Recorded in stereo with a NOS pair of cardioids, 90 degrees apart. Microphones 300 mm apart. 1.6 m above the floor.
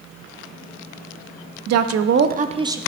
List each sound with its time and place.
1.7 s a woman speaking: 60° right, 0.7 m; by 2.8 s 10° right, 0.7 m